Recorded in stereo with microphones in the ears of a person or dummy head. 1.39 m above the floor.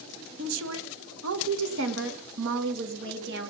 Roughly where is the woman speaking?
Right.